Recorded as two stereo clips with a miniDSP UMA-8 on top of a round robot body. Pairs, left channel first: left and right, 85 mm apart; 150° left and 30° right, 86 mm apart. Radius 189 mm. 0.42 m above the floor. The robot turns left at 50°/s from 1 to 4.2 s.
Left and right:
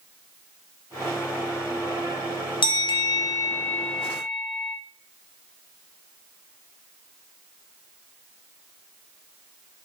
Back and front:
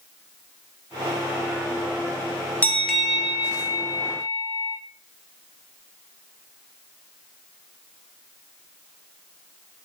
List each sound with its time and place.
2.6 s a bell: 80° left, 0.6 m; by 4.8 s straight ahead, 0.6 m